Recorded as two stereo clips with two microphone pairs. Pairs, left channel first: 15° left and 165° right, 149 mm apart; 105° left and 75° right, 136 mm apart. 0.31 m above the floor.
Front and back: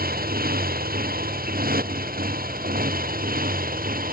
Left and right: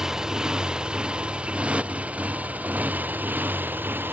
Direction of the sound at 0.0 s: 160° right.